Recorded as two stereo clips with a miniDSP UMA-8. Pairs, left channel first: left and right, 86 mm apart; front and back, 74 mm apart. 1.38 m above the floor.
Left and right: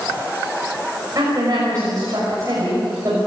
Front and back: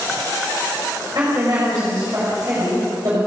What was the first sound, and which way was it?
A woman speaking, 140° right.